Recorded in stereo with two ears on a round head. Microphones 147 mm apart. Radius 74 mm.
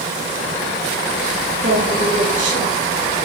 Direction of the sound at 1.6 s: 40° right (ahead or behind).